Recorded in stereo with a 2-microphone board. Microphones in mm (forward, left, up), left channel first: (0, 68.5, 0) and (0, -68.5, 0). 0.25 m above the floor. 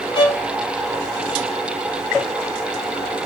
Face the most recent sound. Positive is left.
turn(degrees=35)  # may be behind; listen again after turning